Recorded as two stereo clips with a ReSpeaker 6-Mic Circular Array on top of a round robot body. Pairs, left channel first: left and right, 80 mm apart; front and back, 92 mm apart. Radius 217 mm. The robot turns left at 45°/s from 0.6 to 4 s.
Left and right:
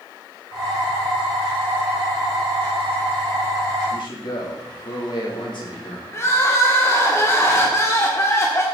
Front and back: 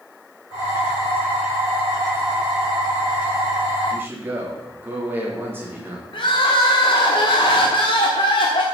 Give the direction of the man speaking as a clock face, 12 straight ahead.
8 o'clock.